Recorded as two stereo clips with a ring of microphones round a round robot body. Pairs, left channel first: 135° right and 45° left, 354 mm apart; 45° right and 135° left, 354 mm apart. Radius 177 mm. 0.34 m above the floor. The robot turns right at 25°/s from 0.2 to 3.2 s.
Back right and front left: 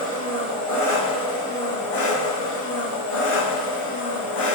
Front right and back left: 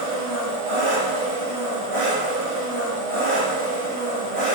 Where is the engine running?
125° left, 1.4 m; by 4.6 s 160° right, 1.4 m.